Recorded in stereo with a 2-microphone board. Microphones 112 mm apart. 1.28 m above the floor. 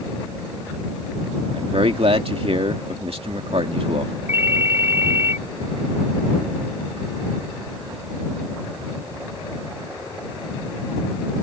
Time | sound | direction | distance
1.5 | a man speaking | 65° right (ahead or behind) | ?
4.3 | a ringtone | 20° right (ahead or behind) | ?